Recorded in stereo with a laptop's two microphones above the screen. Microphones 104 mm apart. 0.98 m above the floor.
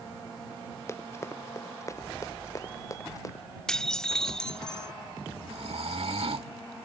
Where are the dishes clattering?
10° left (ahead or behind).